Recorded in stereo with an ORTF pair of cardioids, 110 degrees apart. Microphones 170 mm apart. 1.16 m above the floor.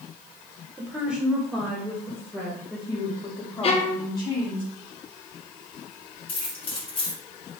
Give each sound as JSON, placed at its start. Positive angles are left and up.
{"t": 0.8, "sound": "a woman speaking", "azimuth_deg": -10, "distance_m": 1.2}
{"t": 3.6, "sound": "a violin", "azimuth_deg": 40, "distance_m": 0.9}
{"t": 6.3, "sound": "keys jangling", "azimuth_deg": 30, "distance_m": 2.5}